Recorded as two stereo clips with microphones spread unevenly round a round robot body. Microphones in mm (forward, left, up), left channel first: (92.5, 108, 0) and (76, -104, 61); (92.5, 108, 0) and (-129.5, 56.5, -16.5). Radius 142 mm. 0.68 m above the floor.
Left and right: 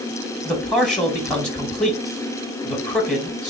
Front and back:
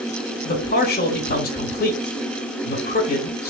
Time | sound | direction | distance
0.5 | a man speaking | 25° left | 1.1 m